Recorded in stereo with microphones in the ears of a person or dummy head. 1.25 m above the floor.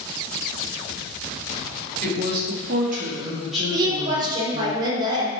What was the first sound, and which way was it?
A woman speaking, 60° right (ahead or behind).